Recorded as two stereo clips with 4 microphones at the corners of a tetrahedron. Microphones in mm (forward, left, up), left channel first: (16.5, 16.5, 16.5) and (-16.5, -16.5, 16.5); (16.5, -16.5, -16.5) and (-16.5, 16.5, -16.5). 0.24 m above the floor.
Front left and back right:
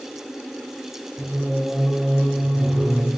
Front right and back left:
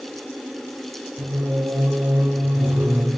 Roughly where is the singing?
Behind left.